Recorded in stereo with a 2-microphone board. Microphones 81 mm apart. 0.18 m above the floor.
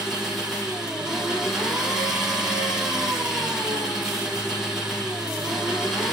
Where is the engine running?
5° right (ahead or behind), 4 m.